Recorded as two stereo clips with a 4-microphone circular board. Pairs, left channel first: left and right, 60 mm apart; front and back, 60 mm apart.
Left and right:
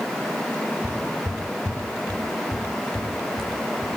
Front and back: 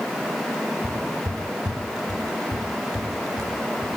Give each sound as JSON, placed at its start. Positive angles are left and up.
{"t": 0.8, "sound": "footsteps", "azimuth_deg": 165, "distance_m": 1.1}